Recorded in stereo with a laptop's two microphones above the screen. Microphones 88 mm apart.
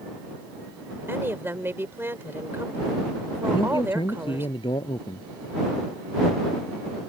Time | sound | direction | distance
1.1 | a woman speaking | 25° right (ahead or behind) | ?
3.5 | a man speaking | 75° left (ahead or behind) | ?